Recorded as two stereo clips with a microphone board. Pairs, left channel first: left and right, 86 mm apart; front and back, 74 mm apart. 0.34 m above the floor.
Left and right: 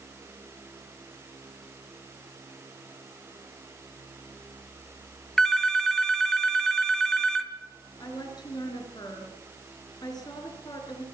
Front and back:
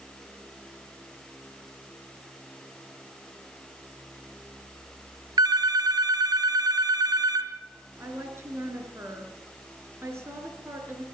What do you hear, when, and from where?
5.4 s a phone ringing: 175° left, 1.7 m
8.0 s a woman speaking: 125° left, 5 m